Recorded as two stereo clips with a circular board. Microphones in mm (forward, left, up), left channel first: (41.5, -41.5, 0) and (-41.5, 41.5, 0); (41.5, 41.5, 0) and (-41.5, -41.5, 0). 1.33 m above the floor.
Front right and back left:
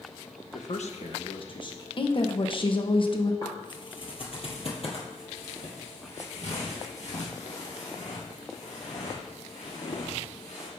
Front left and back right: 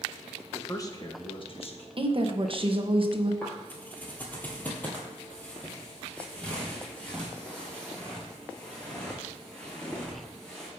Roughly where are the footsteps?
Ahead.